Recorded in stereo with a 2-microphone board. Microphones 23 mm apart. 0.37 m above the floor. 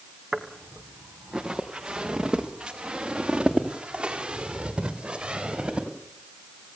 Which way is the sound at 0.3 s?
25° right (ahead or behind).